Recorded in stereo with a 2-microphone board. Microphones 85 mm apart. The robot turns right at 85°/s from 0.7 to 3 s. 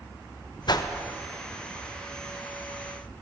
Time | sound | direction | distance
0.7 | a whoosh | 55° left (ahead or behind) | 0.7 m